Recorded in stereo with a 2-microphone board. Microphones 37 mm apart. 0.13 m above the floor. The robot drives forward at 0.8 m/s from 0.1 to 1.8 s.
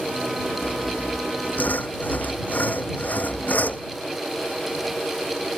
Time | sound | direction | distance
0.6 | sawing | 65° left (ahead or behind) | ?